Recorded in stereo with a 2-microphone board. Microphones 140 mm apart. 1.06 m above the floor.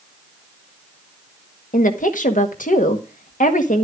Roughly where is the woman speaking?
Left.